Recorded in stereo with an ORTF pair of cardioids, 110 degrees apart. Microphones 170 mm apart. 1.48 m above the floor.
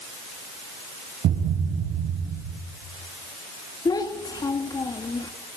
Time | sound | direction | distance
1.2 | a thud | 65° right | 5 m
3.9 | a child speaking | 25° left | 2.5 m